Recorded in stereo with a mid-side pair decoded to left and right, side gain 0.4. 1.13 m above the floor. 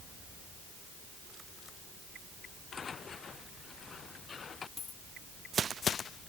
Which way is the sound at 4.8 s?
45° left.